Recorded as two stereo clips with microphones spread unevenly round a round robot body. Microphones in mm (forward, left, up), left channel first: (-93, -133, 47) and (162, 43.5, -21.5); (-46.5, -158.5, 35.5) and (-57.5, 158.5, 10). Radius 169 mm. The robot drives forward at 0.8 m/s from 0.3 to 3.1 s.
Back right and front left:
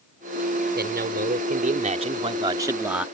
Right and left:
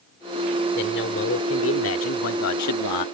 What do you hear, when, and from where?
0.8 s a man speaking: 25° right; by 3.1 s 50° right